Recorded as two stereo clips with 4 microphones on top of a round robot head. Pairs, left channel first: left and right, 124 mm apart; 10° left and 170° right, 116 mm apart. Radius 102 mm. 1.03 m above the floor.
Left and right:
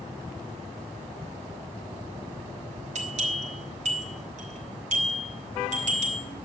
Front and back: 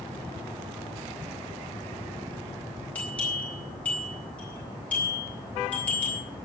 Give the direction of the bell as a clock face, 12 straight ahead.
2 o'clock.